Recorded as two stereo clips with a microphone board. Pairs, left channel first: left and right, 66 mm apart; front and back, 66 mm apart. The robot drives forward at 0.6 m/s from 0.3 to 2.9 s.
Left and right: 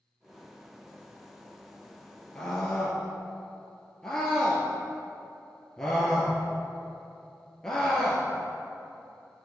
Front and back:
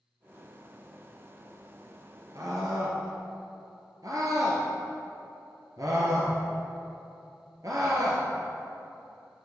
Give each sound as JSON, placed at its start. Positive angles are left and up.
{"t": 2.4, "sound": "a scream", "azimuth_deg": 165, "distance_m": 1.9}